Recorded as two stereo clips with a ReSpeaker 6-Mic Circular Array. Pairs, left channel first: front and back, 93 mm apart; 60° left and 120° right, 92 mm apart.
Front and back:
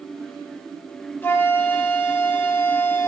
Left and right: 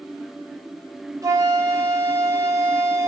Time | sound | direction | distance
1.2 | a flute | 70° right | 4 m